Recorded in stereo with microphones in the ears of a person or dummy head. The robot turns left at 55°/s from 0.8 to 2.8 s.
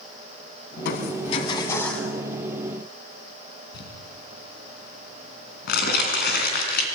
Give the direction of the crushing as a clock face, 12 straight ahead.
10 o'clock.